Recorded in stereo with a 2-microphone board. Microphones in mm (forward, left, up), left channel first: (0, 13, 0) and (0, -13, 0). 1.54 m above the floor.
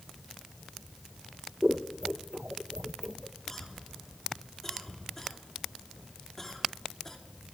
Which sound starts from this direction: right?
Scissors, at 1.6 s.